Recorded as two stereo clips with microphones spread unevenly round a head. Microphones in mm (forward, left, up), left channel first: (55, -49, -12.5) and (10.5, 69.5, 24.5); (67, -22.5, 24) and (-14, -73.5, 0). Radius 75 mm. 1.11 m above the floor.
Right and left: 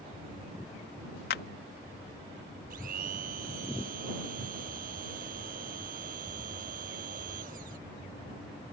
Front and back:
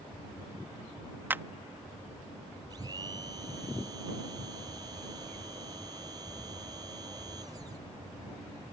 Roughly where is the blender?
Behind left.